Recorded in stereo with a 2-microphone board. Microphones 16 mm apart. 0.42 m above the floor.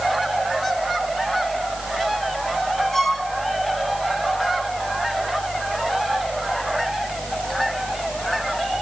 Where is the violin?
25° left (ahead or behind), 2.5 m.